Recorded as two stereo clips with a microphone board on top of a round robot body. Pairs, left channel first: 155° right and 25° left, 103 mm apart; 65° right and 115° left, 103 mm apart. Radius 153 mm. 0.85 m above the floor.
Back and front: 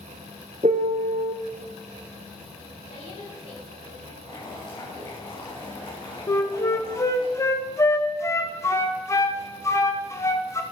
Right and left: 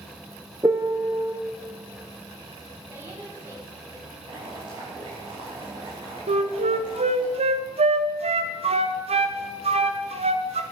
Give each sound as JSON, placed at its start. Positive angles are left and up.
{"t": 0.6, "sound": "a piano", "azimuth_deg": 50, "distance_m": 0.5}
{"t": 2.9, "sound": "a woman speaking", "azimuth_deg": 180, "distance_m": 5.5}
{"t": 4.2, "sound": "boiling", "azimuth_deg": 160, "distance_m": 5.0}
{"t": 6.3, "sound": "a flute", "azimuth_deg": 140, "distance_m": 0.6}